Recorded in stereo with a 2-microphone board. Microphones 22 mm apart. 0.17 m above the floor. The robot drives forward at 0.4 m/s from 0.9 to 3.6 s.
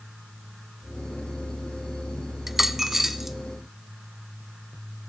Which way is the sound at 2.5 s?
15° right (ahead or behind).